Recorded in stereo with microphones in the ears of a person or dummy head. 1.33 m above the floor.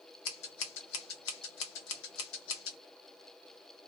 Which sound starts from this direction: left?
Scissors, at 0.2 s.